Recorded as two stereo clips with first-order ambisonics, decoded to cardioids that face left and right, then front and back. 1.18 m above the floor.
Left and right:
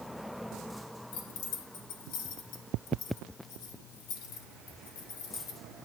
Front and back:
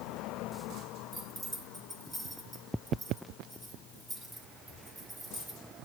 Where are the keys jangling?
105° left, 2.5 m.